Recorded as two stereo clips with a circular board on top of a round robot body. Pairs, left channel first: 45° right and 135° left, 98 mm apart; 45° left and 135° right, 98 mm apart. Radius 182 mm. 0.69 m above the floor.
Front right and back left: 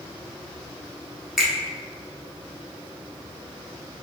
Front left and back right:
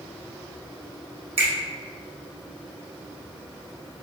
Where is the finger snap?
140° right, 1.3 m.